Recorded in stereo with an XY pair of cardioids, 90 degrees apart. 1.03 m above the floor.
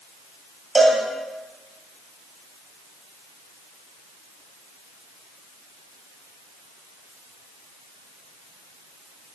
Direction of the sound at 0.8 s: 20° right.